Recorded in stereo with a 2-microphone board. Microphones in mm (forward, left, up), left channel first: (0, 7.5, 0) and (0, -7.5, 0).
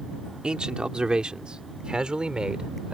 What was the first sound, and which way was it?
A man speaking, 90° right.